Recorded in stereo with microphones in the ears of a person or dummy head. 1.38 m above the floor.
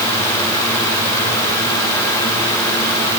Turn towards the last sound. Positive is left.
No sound to turn to.